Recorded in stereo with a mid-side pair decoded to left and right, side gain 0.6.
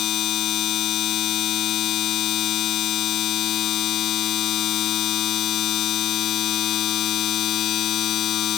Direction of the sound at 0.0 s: 55° left.